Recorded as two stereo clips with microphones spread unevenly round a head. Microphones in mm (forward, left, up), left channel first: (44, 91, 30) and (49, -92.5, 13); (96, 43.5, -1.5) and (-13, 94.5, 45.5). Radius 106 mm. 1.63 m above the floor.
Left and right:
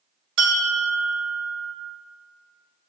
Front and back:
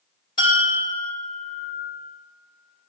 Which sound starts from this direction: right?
A bell, at 0.4 s.